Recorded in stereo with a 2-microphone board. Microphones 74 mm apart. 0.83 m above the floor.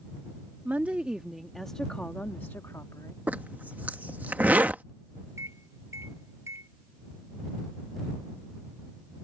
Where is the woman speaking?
25° right (ahead or behind); by 3.2 s 45° left (ahead or behind).